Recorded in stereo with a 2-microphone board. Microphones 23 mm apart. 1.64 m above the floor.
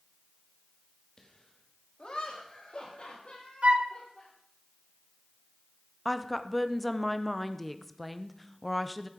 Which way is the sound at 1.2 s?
30° left (ahead or behind).